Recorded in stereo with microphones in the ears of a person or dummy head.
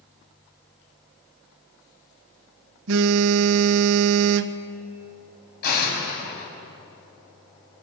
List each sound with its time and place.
2.9 s a phone buzzing: 70° right (ahead or behind), 0.8 m
5.6 s an explosion: 60° left (ahead or behind), 6 m